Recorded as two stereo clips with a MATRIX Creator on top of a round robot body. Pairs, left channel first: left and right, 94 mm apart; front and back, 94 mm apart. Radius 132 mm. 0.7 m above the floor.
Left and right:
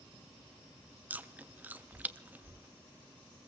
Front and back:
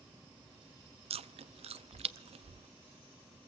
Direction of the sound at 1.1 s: 165° right.